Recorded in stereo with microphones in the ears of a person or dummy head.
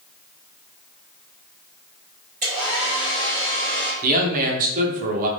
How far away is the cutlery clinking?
I don't hear cutlery clinking.